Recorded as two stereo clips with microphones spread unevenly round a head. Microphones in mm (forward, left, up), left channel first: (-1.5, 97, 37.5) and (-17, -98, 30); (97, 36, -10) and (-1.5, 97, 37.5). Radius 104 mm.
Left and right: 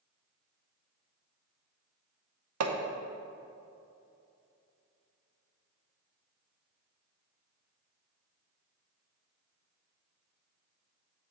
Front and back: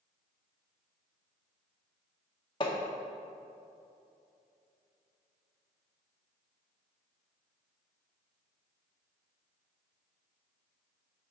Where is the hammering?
105° right, 0.7 m.